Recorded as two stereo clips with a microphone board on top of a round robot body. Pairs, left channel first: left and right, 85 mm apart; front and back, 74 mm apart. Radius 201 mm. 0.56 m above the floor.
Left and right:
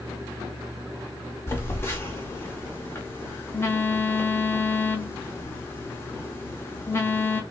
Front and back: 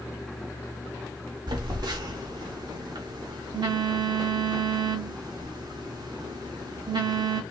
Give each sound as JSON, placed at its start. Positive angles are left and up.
{"t": 1.5, "sound": "a phone buzzing", "azimuth_deg": 155, "distance_m": 0.6}